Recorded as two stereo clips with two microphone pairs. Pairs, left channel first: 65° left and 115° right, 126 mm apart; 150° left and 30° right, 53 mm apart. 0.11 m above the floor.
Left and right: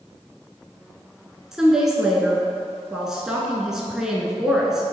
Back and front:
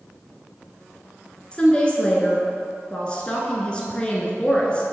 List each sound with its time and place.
1.5 s a woman speaking: 170° left, 1.1 m